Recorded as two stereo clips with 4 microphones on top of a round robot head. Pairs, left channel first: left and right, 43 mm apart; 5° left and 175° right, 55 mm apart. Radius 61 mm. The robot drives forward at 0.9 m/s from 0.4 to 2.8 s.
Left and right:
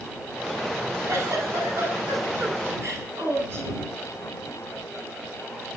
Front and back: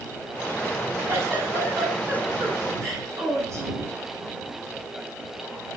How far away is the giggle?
About 9.5 m.